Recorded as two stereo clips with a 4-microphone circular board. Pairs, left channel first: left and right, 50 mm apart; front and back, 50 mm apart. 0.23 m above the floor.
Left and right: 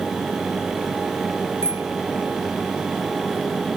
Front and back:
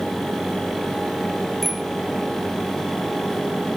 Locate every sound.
1.6 s a bicycle bell: 85° right